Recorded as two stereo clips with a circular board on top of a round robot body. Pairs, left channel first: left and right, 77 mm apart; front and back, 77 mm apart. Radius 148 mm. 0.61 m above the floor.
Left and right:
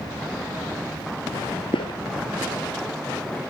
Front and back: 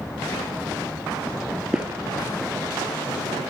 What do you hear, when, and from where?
1.7 s footsteps: 95° left, 0.8 m; by 3.4 s 160° left, 3 m